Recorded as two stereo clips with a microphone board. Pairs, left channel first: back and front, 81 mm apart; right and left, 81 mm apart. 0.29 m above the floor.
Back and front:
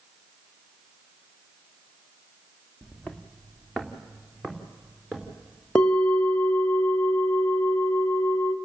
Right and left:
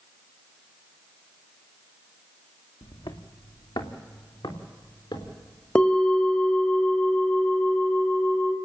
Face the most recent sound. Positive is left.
turn(degrees=-130)